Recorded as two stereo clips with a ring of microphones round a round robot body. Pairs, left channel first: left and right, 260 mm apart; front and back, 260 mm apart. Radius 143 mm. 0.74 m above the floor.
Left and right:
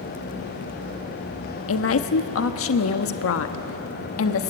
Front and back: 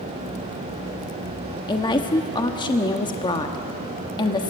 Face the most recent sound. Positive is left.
turn(degrees=70)